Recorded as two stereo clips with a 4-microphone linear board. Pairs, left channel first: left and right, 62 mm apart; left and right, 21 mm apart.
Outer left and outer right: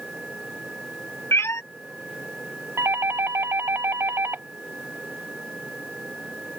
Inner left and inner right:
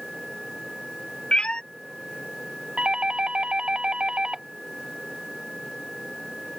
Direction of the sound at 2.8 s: 45° right (ahead or behind).